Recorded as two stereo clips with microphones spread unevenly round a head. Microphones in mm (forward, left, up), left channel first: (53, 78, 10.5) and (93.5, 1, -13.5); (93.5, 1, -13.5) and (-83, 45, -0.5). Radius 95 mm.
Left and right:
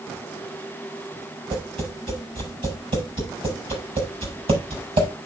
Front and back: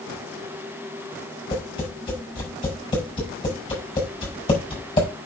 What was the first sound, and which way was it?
Tapping, 80° right.